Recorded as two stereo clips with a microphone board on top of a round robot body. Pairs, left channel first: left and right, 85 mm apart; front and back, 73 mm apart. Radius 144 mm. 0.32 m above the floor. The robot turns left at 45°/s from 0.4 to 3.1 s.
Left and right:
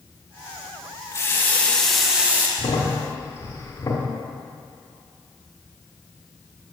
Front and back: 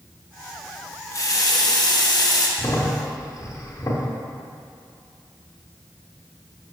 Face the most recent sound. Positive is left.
turn(degrees=35)